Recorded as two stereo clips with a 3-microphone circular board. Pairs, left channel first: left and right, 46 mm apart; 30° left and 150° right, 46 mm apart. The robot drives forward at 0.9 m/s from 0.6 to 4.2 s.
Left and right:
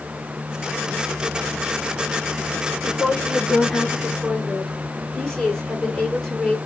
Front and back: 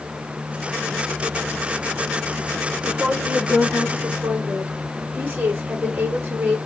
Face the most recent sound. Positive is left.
turn(degrees=175)